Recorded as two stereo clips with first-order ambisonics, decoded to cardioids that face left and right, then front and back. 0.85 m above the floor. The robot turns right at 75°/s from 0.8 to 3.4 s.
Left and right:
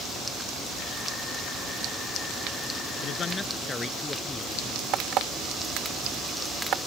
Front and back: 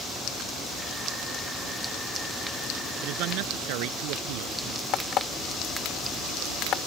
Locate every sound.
3.0 s a man speaking: 140° left; by 4.8 s 170° left
4.9 s an alarm clock: 45° right